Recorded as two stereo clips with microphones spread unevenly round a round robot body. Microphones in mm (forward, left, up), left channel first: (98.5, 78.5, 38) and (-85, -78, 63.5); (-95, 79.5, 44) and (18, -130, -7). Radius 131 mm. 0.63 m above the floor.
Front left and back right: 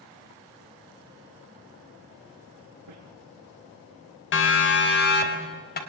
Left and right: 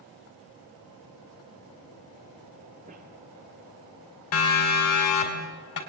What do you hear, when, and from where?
2.9 s a squeak: 120° right, 6 m
4.3 s a siren: 75° left, 3 m; by 5.8 s 90° left, 3.5 m